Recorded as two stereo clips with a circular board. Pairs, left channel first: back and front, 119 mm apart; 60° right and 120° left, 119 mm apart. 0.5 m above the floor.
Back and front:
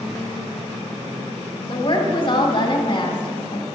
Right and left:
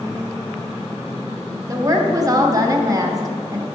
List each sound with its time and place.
1.7 s a woman speaking: 165° left, 1.3 m